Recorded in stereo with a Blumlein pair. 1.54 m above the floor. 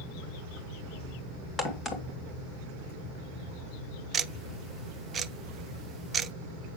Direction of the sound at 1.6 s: 20° left.